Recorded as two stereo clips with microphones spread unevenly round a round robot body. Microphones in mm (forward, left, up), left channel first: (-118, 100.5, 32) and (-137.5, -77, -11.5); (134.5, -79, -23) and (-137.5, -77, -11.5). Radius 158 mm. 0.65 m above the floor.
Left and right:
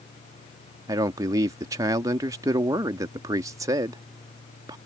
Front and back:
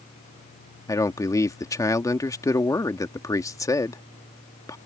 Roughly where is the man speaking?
Ahead right.